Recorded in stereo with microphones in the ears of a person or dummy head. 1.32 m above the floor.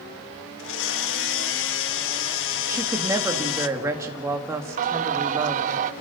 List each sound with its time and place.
0.6 s a blender: 75° left (ahead or behind), 1.3 m
2.7 s a woman speaking: 15° right (ahead or behind), 2.5 m
4.8 s singing: 45° right (ahead or behind), 0.5 m